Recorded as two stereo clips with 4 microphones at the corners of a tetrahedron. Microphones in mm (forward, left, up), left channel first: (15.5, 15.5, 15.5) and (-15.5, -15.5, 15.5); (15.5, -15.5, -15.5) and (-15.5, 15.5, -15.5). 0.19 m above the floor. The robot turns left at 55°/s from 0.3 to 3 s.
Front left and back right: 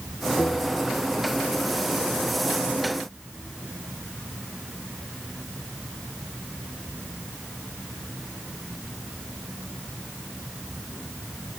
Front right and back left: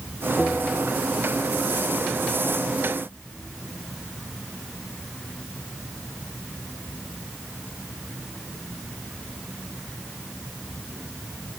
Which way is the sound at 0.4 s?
30° left.